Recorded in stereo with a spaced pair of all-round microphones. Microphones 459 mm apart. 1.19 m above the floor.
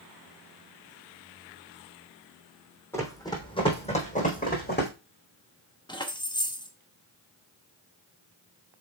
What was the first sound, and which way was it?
Running footsteps, 5° left (ahead or behind).